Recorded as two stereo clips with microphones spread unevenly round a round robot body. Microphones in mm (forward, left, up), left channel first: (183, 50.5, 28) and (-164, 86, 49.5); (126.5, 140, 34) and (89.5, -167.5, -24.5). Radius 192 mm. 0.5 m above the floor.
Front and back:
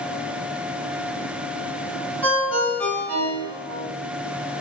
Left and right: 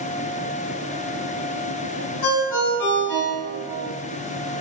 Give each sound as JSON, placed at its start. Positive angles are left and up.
{"t": 2.2, "sound": "a ringtone", "azimuth_deg": 80, "distance_m": 1.9}